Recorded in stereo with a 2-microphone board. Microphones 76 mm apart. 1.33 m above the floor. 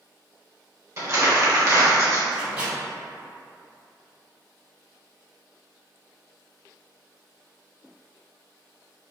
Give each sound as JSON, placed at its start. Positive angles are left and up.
{"t": 1.0, "sound": "crumpling", "side_deg": -35, "distance_m": 1.0}
{"t": 2.3, "sound": "a microwave", "side_deg": -10, "distance_m": 2.0}